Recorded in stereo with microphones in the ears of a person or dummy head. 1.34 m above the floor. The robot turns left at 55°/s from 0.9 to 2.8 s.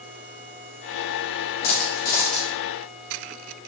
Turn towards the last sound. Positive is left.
turn(degrees=-10)